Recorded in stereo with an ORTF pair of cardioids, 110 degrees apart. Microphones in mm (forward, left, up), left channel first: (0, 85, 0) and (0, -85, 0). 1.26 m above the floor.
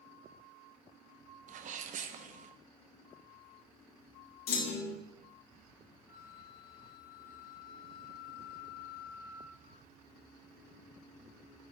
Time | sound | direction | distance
1.5 | a sneeze | 45° right | 0.8 m
4.5 | a clunk | 70° left | 1.0 m
6.1 | a flute | 55° left | 1.5 m